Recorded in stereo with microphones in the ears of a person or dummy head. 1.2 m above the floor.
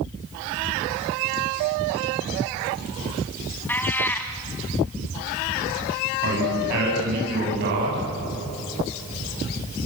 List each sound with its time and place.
3.7 s a cat meowing: 5° left (ahead or behind), 2.5 m
6.2 s a man speaking: 60° right (ahead or behind), 9 m